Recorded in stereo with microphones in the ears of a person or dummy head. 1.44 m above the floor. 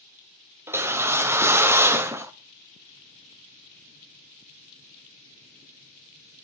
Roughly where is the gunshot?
No gunshot in this recording.